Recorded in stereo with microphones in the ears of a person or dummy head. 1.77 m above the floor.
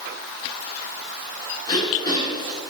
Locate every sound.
1.7 s throat clearing: 25° left (ahead or behind), 1.7 m